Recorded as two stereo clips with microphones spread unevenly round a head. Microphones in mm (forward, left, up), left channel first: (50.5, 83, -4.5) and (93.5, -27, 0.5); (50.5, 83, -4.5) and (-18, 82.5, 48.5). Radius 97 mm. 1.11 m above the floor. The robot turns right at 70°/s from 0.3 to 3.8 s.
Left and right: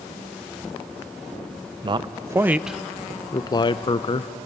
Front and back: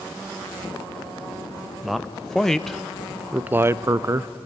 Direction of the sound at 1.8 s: 40° right.